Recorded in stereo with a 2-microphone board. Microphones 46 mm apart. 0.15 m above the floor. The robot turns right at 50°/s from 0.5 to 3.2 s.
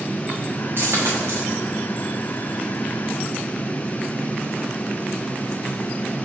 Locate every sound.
0.8 s a dropped coin: 55° right (ahead or behind), 1.9 m; by 1.6 s 85° right, 1.9 m